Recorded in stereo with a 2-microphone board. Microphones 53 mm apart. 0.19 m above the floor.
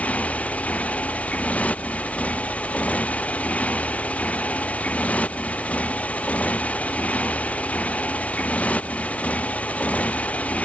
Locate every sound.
0.0 s a motorcycle: 20° left (ahead or behind)